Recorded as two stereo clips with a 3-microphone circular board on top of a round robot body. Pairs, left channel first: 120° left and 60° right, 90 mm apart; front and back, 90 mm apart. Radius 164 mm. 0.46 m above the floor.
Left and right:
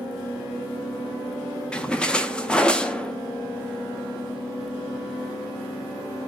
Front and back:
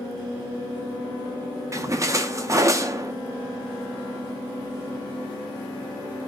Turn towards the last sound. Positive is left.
turn(degrees=-170)